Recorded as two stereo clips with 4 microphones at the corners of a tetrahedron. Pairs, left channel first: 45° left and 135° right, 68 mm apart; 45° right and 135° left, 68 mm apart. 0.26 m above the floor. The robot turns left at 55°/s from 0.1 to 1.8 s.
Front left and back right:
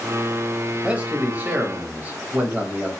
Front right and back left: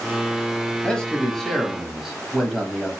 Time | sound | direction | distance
0.8 | a man speaking | 95° right | 1.0 m